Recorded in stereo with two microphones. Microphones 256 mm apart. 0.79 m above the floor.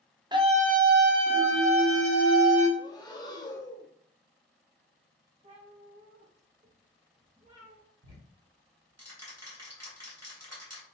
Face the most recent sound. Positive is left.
turn(degrees=-75)  # may be behind; listen again after turning